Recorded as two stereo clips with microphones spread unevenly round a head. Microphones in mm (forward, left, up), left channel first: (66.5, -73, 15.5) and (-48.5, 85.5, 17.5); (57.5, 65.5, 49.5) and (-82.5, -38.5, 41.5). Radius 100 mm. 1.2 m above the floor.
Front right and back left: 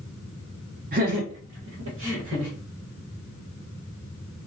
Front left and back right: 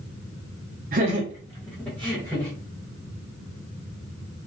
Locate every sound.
0.9 s laughter: 175° left, 0.7 m; by 2.5 s 110° left, 1.6 m